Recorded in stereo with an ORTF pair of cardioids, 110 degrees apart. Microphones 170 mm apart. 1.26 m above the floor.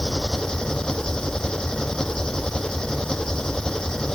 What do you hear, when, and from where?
0.0 s an engine running: 5° left